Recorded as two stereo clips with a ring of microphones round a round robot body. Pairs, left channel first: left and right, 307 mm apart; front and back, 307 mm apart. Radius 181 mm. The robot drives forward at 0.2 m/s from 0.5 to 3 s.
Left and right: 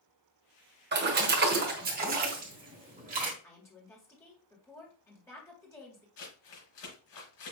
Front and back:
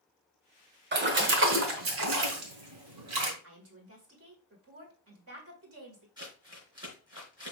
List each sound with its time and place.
0.9 s a splash: 135° right, 1.0 m; by 3.3 s 150° right, 1.3 m
3.4 s a woman speaking: 170° left, 1.9 m
6.2 s crumpling: 105° left, 3.5 m